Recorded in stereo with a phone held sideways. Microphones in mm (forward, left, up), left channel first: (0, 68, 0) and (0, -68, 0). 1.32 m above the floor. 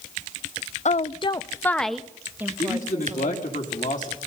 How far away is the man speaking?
About 3 m.